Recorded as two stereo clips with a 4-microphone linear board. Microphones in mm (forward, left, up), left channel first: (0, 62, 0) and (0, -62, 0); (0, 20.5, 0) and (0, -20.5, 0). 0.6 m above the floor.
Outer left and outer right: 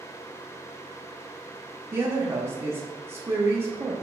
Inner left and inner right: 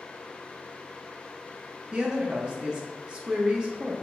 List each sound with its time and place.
1.9 s a woman speaking: 20° right (ahead or behind), 0.5 m